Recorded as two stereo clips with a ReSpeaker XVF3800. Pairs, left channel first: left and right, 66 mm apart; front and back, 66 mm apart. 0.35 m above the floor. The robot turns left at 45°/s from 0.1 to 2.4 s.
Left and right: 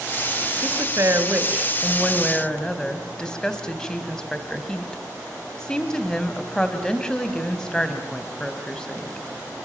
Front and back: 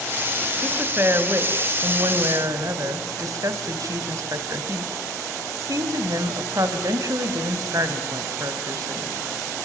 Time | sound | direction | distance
0.6 | a woman speaking | 115° right | 2.5 m